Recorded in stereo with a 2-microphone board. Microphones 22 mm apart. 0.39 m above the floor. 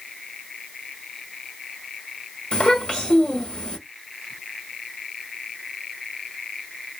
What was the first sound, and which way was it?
A child speaking, 45° left (ahead or behind).